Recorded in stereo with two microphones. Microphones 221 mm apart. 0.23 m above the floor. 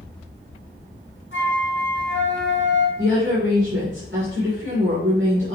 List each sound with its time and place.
1.3 s a flute: 60° left (ahead or behind), 2.5 m
3.0 s a woman speaking: 60° right (ahead or behind), 2.5 m